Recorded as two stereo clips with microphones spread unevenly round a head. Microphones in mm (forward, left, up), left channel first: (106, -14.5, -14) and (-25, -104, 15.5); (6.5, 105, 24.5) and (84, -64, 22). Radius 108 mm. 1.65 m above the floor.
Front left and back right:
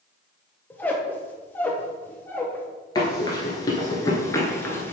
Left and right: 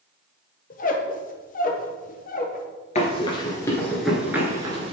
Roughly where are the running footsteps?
Left.